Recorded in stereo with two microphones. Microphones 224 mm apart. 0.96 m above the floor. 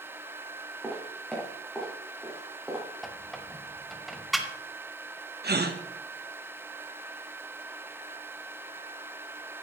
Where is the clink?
No clink in this recording.